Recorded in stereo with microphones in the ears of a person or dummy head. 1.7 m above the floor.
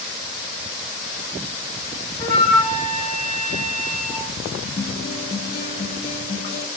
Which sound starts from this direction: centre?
A flute, at 2.2 s.